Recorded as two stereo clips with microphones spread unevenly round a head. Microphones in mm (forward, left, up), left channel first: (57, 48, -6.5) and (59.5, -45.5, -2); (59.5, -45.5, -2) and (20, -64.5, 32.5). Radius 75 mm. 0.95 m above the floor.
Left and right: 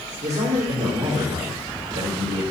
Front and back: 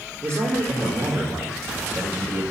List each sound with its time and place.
0.2 s a man speaking: 100° right, 1.8 m